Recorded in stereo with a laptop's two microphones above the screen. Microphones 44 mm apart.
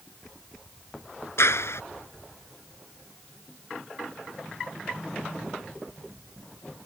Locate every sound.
1.4 s a clap: 75° left (ahead or behind)